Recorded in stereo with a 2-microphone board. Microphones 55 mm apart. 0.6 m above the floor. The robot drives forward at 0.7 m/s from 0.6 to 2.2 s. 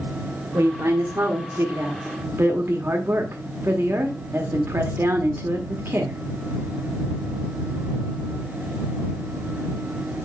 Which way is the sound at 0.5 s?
55° right (ahead or behind).